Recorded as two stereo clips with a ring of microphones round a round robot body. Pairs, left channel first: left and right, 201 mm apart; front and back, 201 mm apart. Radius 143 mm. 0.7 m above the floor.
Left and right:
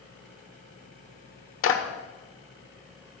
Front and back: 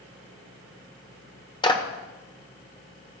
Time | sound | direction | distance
1.6 | a clap | 70° left | 1.4 m